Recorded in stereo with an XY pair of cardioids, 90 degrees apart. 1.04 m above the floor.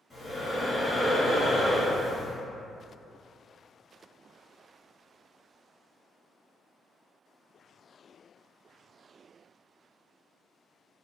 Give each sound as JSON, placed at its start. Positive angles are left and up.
{"t": 0.1, "sound": "breathing", "azimuth_deg": 25, "distance_m": 1.6}